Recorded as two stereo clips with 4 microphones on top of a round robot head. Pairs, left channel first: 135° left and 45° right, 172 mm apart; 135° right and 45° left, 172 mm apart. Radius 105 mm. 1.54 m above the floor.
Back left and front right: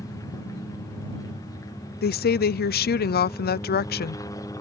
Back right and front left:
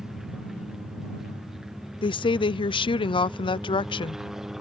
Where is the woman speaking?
165° left.